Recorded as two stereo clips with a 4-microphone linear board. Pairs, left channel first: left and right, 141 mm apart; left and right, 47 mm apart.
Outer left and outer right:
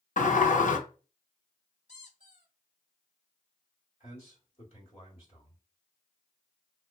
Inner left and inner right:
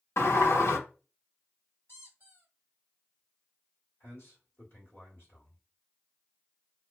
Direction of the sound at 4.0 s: 40° left (ahead or behind).